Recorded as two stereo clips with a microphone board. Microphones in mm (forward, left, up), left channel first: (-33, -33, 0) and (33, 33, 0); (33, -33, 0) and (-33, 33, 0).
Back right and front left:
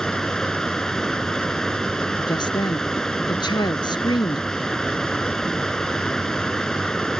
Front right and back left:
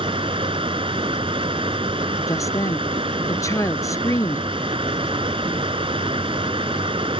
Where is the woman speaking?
100° right.